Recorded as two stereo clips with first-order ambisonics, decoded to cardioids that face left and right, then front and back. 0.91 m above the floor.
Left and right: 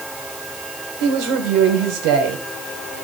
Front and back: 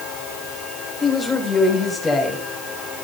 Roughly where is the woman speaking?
Right.